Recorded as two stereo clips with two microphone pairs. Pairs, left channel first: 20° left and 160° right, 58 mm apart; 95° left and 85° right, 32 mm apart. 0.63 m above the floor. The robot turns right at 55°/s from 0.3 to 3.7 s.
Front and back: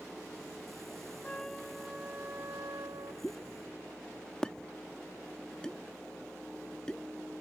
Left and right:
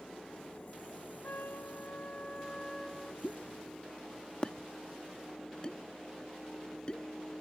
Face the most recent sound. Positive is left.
turn(degrees=85)